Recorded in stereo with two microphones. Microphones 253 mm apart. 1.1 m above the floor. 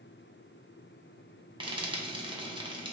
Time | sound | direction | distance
1.6 | frying | 20° right (ahead or behind) | 0.7 m